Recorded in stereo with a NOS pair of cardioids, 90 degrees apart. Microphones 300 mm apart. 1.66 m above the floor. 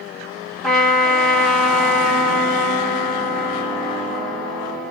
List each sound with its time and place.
0.6 s a trumpet: straight ahead, 1.1 m